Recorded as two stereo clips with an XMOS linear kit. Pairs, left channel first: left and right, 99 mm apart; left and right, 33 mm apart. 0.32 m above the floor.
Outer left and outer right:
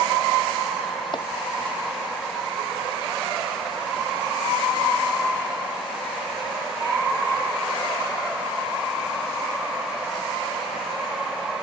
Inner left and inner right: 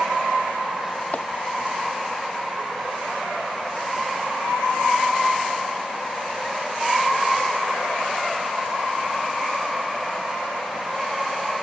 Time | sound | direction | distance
1.1 | chopping | 50° left (ahead or behind) | ?